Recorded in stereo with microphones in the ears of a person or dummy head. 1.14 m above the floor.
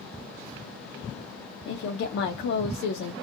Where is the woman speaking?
65° left (ahead or behind), 0.5 m.